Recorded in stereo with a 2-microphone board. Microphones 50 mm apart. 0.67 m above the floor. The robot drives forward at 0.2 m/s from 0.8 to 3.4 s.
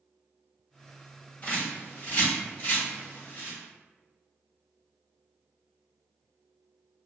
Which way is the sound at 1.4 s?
35° left (ahead or behind).